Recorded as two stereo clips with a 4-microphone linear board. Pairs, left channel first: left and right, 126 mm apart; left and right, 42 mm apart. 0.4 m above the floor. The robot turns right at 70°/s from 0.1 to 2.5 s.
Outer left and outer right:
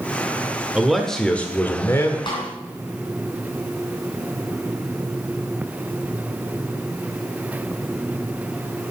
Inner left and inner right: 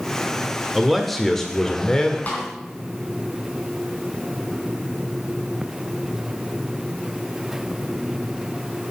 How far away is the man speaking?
About 1.2 m.